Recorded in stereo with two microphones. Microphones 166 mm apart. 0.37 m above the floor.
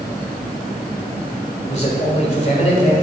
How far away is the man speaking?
About 1.5 m.